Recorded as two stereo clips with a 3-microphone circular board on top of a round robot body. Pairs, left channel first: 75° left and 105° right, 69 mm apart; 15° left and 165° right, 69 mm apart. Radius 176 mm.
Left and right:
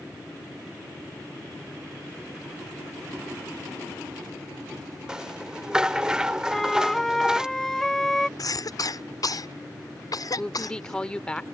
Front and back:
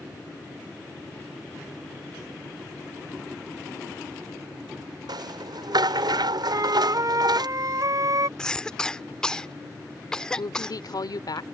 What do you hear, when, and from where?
5.1 s a rattle: 175° left
6.5 s a flute: 160° left
8.4 s a cough: 95° left
10.4 s a woman speaking: straight ahead